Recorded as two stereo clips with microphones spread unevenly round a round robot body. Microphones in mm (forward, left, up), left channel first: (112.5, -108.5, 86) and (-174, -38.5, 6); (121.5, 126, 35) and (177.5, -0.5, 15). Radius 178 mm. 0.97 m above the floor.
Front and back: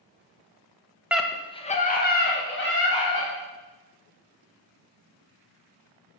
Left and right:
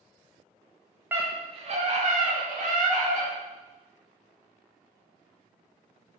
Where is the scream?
130° right, 1.0 m; by 3.3 s 65° right, 3 m.